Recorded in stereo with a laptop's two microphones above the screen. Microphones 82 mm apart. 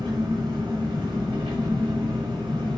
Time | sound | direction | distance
0.0 | an engine running | 90° right | 5 m